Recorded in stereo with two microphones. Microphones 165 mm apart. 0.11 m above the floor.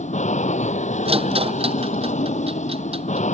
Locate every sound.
0.0 s an aircraft: 45° left (ahead or behind)
1.1 s a rattle: 35° right (ahead or behind)